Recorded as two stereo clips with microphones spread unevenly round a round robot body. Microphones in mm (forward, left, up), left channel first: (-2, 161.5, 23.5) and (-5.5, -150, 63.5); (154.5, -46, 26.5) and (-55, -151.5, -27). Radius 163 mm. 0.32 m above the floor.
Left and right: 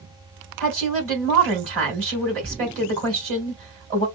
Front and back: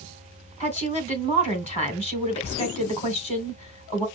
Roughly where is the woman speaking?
Ahead right.